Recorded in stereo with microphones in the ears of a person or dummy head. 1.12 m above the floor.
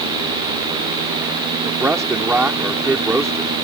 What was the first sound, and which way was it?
A man speaking, 5° right (ahead or behind).